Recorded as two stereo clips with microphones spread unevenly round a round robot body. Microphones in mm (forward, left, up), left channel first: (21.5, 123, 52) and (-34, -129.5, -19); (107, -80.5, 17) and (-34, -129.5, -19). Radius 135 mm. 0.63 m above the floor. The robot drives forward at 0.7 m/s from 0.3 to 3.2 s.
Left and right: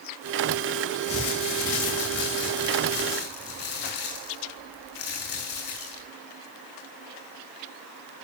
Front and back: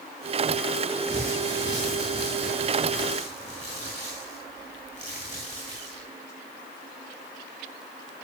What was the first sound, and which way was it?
Crumpling, 120° left.